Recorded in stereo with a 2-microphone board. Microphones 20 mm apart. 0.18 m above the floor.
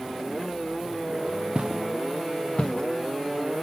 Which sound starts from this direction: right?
Footsteps, at 1.6 s.